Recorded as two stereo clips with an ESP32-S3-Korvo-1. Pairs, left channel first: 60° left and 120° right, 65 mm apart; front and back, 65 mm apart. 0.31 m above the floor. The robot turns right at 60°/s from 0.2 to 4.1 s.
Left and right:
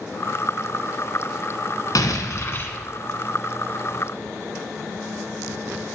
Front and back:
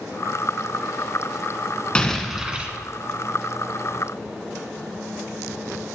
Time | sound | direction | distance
1.9 | an explosion | 75° left | 1.1 m